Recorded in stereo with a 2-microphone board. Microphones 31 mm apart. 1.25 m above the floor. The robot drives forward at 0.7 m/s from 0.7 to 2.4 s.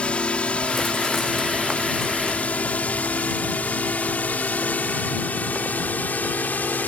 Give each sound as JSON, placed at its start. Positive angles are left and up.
{"t": 0.0, "sound": "a drone", "side_deg": 35}